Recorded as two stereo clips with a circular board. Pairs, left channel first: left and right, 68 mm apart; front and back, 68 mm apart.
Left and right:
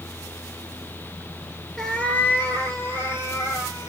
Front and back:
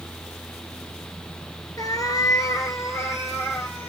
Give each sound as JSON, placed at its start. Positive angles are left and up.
{"t": 1.8, "sound": "a cat meowing", "azimuth_deg": 5, "distance_m": 0.7}